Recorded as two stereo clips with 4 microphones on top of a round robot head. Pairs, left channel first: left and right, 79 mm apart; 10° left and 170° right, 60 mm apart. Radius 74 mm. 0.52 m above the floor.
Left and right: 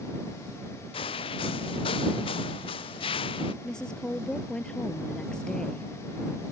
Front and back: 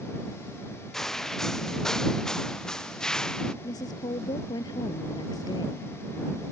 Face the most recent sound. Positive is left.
turn(degrees=10)